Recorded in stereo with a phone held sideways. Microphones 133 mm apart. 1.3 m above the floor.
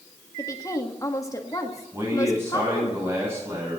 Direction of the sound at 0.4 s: 25° left (ahead or behind).